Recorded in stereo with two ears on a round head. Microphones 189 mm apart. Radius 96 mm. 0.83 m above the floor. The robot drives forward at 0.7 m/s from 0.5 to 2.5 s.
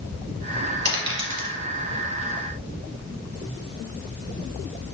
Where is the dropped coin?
55° right (ahead or behind), 1.8 m; by 1.5 s 65° right (ahead or behind), 1.6 m.